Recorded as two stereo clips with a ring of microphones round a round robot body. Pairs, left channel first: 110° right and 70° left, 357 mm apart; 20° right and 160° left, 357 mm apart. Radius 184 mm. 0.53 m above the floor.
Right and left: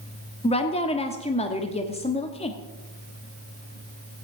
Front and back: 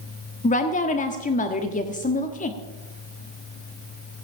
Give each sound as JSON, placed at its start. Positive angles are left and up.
{"t": 0.4, "sound": "a woman speaking", "azimuth_deg": -60, "distance_m": 1.1}